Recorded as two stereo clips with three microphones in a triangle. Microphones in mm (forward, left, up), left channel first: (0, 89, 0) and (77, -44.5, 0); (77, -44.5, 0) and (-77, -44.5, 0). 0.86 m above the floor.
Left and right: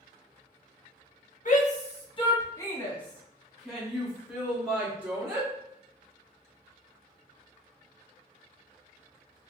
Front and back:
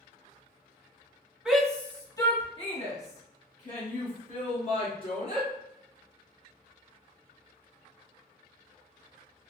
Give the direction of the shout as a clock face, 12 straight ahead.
9 o'clock.